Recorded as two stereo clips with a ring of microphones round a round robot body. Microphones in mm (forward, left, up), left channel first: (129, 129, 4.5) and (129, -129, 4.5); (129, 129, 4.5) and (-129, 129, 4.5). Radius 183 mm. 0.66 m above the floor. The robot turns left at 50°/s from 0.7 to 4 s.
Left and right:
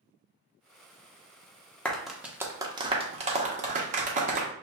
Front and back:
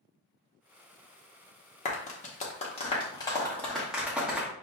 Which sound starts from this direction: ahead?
A clap, at 1.9 s.